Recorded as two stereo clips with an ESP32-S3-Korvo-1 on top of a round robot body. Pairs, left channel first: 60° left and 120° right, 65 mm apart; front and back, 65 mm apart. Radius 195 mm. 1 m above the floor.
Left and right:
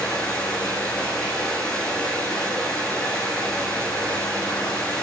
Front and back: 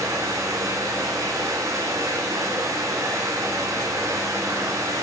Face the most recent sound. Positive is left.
turn(degrees=135)